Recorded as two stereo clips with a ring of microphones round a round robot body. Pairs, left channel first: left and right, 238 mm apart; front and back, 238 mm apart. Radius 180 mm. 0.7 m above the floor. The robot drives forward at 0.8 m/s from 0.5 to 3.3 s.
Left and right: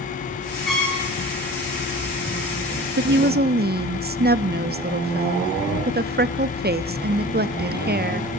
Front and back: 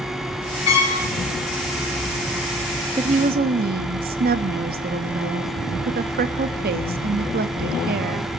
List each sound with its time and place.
0.7 s a trumpet: straight ahead, 5 m
3.0 s a woman speaking: 115° right, 0.7 m; by 8.3 s 135° right, 0.9 m